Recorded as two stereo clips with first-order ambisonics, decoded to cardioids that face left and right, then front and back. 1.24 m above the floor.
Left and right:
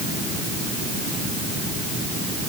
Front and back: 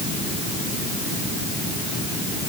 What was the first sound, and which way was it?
Only background noise.